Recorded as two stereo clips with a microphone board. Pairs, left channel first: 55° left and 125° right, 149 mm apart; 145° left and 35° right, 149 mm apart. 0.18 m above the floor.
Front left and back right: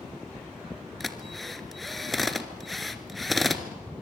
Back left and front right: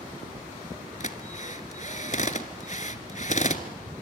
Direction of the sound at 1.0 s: 145° left.